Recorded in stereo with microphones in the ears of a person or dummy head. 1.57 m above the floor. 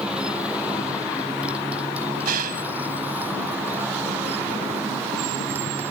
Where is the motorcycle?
5° right (ahead or behind); by 5.9 s 10° right (ahead or behind).